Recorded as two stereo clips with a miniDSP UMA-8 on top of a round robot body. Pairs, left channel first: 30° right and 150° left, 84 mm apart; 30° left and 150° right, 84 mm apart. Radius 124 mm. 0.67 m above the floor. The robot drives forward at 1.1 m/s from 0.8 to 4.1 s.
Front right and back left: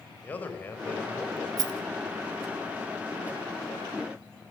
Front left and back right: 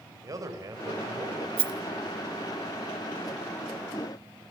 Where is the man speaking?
100° right, 4.5 m; by 1.5 s 110° right, 4.5 m.